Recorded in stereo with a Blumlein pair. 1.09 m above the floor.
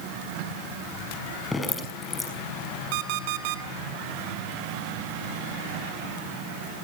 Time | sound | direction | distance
1.5 | dripping | 10° left | 5.5 m
2.9 | an alarm clock | 45° right | 2 m